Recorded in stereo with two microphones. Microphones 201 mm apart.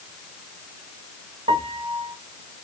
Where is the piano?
30° right (ahead or behind), 0.8 m.